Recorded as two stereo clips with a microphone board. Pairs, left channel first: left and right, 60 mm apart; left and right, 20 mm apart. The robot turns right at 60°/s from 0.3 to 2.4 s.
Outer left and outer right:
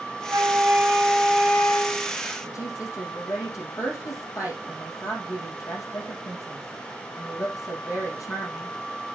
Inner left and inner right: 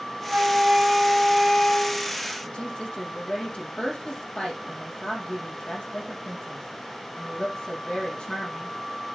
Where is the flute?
55° right, 4 m; by 2.2 s 60° left, 4 m.